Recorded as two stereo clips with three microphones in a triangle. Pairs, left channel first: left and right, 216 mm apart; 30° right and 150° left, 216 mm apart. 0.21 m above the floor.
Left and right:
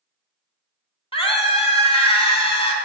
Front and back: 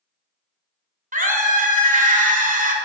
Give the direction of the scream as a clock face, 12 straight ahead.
7 o'clock.